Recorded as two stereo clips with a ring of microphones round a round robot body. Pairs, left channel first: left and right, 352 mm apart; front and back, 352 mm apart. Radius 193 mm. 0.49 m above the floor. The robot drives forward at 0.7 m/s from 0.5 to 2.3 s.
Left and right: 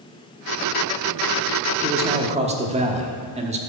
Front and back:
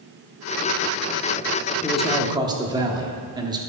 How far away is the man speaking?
About 1.1 m.